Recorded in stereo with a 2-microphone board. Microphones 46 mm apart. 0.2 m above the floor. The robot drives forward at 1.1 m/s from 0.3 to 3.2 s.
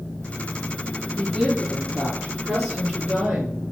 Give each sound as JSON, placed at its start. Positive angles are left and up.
{"t": 1.1, "sound": "a woman speaking", "side_deg": -25, "distance_m": 5.5}